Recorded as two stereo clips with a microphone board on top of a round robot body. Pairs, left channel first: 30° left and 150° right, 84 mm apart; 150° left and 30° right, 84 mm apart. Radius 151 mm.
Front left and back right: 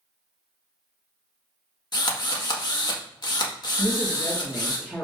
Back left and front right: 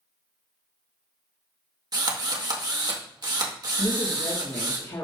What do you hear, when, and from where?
1.9 s a drill: straight ahead, 2 m
3.8 s a woman speaking: 115° left, 2 m